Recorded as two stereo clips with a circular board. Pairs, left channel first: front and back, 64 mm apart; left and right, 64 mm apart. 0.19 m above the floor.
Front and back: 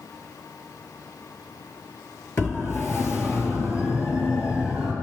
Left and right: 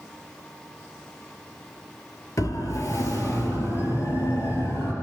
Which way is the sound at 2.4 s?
50° left.